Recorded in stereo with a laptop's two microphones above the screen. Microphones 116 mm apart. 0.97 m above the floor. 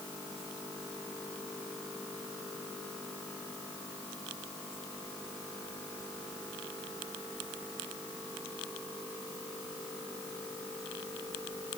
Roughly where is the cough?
I don't hear a cough.